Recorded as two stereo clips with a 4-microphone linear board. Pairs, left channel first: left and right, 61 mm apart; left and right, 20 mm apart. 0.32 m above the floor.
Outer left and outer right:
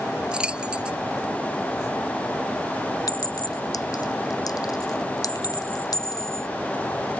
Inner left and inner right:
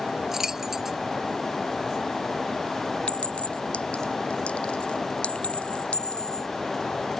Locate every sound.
0.3 s keys jangling: 15° right (ahead or behind)
3.1 s a clink: 80° left